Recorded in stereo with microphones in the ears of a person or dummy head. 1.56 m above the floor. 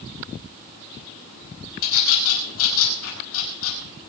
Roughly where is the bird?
Left.